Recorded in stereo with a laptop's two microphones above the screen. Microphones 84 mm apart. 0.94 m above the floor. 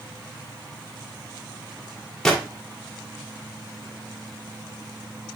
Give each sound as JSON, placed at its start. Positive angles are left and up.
{"t": 2.2, "sound": "a gunshot", "side_deg": 5, "distance_m": 1.9}